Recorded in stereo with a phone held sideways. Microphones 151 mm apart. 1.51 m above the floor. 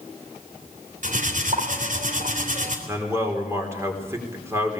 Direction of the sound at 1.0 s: 65° right (ahead or behind).